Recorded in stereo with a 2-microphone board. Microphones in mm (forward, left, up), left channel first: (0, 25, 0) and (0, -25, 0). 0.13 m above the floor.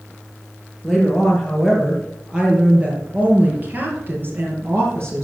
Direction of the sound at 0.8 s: 5° left (ahead or behind).